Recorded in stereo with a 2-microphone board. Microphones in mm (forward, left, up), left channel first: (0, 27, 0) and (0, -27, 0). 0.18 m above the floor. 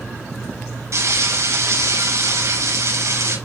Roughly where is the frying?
Right.